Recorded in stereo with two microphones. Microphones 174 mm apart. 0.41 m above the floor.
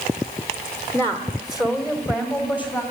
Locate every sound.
0.9 s a woman speaking: 15° left (ahead or behind), 1.2 m; by 2.8 s 25° left (ahead or behind), 2.5 m